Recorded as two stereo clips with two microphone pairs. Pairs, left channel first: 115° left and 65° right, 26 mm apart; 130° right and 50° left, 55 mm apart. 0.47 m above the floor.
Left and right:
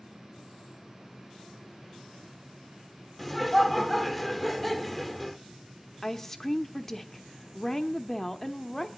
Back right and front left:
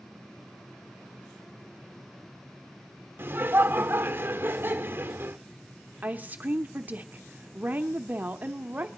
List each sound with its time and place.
3.2 s laughter: 30° left, 0.9 m
6.0 s a woman speaking: 60° left, 0.8 m